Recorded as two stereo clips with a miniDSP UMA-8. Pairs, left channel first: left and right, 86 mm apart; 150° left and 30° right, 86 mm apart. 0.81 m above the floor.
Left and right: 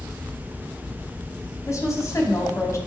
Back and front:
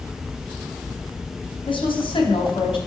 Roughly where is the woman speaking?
Behind left.